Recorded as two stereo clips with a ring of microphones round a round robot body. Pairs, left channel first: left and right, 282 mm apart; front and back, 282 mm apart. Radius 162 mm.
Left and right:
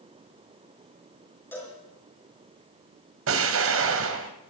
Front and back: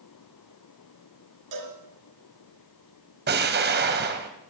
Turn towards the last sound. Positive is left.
turn(degrees=-130)